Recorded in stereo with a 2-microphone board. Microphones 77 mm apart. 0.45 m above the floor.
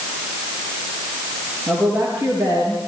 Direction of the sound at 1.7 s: 25° right (ahead or behind).